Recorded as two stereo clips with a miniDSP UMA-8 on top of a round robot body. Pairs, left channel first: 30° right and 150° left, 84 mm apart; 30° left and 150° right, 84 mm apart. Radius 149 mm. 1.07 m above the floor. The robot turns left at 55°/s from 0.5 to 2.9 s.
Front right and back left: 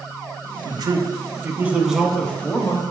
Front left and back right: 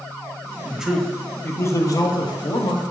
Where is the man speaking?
135° left, 0.7 m; by 2.8 s 15° left, 0.7 m.